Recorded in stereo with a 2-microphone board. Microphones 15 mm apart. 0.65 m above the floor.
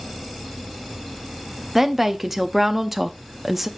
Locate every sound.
1.8 s a woman speaking: 10° right (ahead or behind), 0.5 m